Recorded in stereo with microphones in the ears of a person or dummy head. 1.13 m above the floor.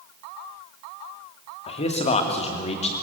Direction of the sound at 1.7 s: 40° left (ahead or behind).